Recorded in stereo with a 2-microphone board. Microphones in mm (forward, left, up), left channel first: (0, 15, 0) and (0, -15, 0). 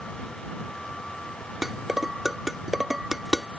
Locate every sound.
1.6 s dishes clattering: 15° right (ahead or behind)